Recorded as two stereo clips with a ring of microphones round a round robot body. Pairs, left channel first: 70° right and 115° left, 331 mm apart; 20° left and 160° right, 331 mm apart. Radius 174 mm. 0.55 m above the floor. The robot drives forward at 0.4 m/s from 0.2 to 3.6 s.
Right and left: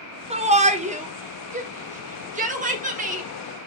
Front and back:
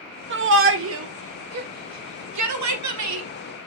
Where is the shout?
175° left, 1.3 m.